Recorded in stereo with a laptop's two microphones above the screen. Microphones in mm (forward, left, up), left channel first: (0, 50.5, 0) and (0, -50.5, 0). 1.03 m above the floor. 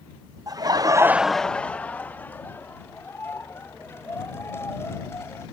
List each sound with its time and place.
0.5 s laughter: 35° right (ahead or behind); by 5.4 s 25° left (ahead or behind)